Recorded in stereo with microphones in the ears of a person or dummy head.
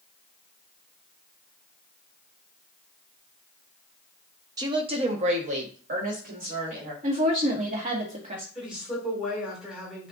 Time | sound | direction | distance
4.6 | a woman speaking | 20° right (ahead or behind) | 0.6 m
7.0 | a woman speaking | 35° right (ahead or behind) | 1.5 m
8.6 | a woman speaking | centre (ahead or behind) | 2.5 m